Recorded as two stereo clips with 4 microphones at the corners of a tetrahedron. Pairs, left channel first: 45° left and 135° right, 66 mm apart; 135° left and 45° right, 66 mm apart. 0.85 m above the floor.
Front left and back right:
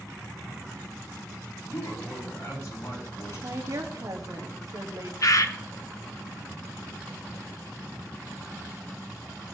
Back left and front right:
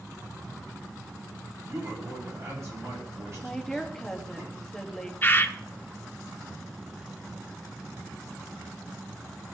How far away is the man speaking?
About 5.5 m.